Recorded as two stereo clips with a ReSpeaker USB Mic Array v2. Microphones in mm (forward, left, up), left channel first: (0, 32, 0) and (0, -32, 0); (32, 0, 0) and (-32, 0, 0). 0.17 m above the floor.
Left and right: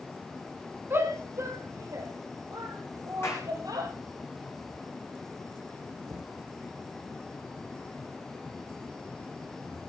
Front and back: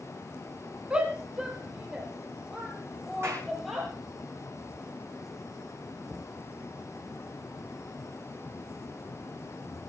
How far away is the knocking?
About 5 m.